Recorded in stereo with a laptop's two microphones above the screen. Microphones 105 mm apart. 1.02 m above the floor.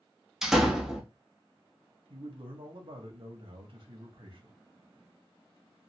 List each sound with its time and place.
0.4 s a door slam: 5° right (ahead or behind), 0.6 m
2.1 s a man speaking: 60° right (ahead or behind), 1.1 m